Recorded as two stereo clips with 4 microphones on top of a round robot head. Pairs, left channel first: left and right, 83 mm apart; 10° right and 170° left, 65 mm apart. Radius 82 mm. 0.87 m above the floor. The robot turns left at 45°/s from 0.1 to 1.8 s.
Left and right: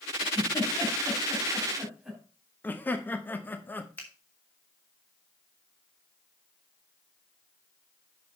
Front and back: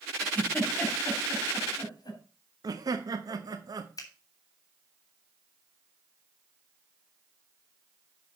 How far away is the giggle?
About 3.5 m.